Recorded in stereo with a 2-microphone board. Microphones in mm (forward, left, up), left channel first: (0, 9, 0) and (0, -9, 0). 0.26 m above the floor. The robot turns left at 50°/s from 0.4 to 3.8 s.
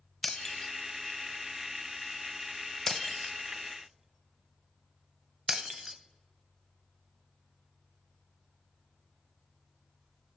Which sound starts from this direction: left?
Breaking glass, at 0.2 s.